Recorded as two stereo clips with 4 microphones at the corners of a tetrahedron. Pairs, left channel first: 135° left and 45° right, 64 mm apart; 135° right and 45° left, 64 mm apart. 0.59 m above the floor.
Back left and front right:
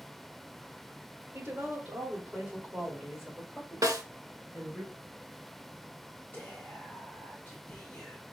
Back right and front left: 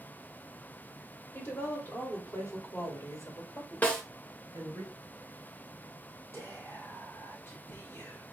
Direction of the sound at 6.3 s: 170° right.